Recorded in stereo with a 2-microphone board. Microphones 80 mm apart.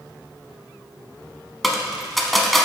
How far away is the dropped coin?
About 0.8 m.